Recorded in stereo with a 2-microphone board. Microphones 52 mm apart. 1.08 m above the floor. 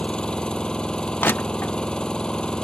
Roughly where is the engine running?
Centre.